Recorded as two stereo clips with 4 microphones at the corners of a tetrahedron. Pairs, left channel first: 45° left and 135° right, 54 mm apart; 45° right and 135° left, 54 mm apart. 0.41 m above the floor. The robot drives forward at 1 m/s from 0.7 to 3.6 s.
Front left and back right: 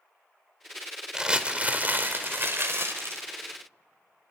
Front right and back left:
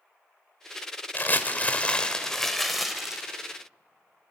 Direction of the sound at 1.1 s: 65° right.